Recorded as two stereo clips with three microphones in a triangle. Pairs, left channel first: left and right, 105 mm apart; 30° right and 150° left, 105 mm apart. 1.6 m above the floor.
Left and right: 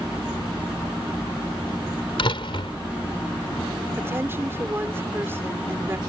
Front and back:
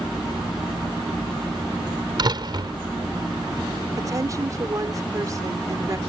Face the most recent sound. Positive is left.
turn(degrees=-155)